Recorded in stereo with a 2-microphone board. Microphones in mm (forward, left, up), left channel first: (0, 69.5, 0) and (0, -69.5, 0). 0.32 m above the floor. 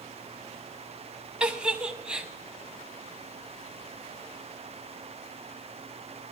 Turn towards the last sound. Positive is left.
turn(degrees=-5)  # may be behind; listen again after turning